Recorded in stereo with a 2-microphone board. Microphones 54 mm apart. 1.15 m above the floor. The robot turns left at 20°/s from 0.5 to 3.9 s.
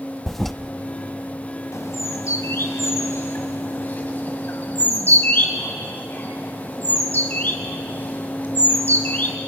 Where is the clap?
No clap in this recording.